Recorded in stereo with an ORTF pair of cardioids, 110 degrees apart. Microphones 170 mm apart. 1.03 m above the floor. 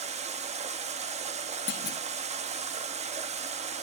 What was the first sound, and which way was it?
Running water, 40° right.